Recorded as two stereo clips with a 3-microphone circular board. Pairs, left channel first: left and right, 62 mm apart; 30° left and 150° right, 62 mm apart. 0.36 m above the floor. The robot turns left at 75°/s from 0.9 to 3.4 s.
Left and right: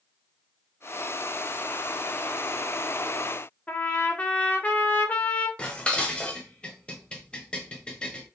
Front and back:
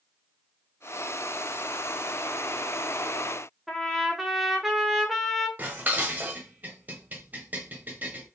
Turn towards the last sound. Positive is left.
turn(degrees=160)